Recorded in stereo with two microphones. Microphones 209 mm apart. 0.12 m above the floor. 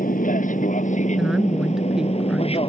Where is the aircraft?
40° left (ahead or behind); by 2.7 s 25° left (ahead or behind).